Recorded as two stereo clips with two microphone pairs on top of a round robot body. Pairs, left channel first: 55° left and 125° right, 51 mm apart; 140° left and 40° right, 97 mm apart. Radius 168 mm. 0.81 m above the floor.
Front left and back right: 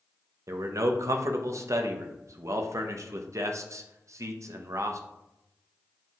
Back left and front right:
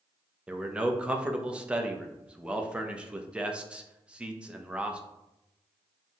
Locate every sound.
0.5 s a man speaking: 115° right, 0.7 m